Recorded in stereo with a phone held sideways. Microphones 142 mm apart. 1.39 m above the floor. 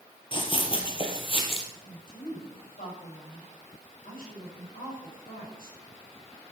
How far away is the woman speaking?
About 7.5 m.